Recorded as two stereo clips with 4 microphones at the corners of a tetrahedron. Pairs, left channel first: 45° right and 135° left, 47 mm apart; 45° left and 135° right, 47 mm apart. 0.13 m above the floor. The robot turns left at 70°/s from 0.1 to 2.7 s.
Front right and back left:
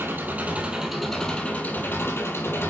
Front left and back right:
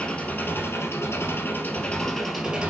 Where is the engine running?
110° left, 2.5 m; by 2.7 s 70° right, 2.5 m.